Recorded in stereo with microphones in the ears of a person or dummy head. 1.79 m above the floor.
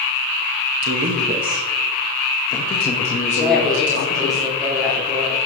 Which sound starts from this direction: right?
A man speaking, at 0.8 s.